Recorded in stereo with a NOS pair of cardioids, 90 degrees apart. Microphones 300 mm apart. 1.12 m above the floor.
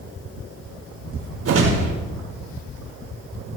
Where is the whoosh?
50° right, 6 m.